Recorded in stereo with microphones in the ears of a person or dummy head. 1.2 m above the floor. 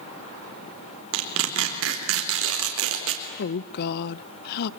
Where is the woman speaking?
55° left (ahead or behind), 0.7 m.